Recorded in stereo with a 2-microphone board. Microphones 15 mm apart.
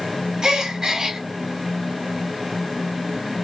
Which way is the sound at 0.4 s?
50° right (ahead or behind).